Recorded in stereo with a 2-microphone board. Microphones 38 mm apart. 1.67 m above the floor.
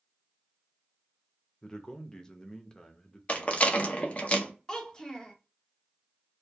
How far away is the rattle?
About 0.5 m.